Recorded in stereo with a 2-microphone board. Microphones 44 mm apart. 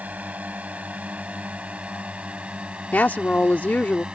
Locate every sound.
0.0 s a drone: 40° right (ahead or behind); by 4.1 s 25° right (ahead or behind)
2.9 s a woman speaking: 50° left (ahead or behind)